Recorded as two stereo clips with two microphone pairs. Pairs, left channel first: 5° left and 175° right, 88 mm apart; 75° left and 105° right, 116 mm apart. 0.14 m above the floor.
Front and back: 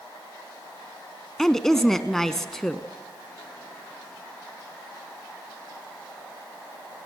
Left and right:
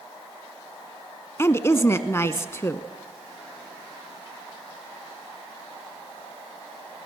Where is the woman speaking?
85° left, 1.1 m.